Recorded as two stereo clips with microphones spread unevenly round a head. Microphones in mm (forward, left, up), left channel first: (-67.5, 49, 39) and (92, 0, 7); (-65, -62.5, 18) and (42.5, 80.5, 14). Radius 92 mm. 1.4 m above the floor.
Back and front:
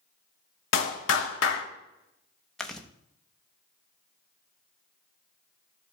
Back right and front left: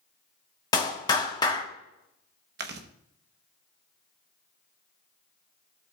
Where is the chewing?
80° left, 0.9 m.